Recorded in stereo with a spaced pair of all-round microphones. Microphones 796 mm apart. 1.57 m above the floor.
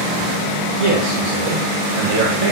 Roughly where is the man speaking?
Right.